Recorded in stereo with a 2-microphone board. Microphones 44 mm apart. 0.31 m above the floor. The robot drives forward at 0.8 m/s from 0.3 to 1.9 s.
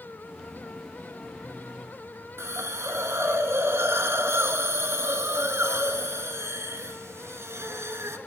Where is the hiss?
85° right, 0.7 m.